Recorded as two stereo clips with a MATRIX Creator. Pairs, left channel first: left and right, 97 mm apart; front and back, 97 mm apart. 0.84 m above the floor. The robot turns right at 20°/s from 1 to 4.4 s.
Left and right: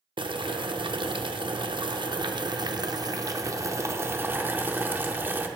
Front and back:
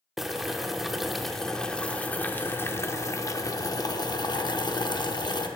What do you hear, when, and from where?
0.2 s boiling: 95° right, 0.6 m; by 5.5 s 25° right, 0.6 m